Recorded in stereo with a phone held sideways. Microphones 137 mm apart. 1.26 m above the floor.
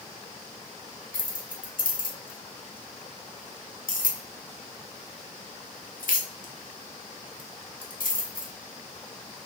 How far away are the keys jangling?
About 0.8 m.